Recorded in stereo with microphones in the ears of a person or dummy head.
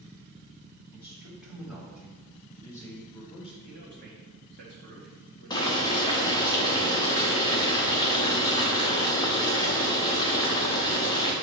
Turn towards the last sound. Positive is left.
turn(degrees=20)  # may be behind; listen again after turning